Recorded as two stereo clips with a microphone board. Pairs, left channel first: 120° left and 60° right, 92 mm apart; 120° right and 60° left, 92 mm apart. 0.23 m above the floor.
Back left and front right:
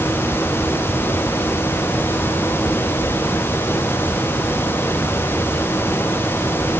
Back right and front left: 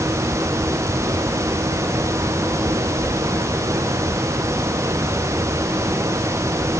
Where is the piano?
No piano in this recording.